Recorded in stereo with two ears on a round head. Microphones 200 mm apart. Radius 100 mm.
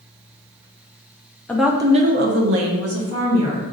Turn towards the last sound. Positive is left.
turn(degrees=-70)  # may be behind; listen again after turning